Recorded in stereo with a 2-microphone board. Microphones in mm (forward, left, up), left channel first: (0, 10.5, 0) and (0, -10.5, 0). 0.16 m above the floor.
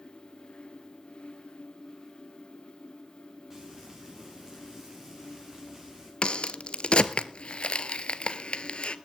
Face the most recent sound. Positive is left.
turn(degrees=65)  # may be behind; listen again after turning